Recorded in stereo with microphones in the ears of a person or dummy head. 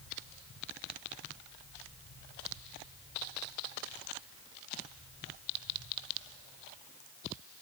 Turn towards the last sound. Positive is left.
No sound to turn to.